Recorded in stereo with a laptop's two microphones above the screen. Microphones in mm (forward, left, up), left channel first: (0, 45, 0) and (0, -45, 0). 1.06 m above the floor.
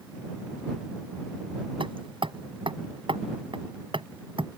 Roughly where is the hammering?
Right.